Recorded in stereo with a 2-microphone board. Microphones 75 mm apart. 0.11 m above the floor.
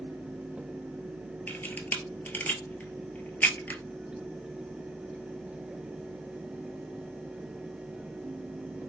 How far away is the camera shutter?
About 0.6 m.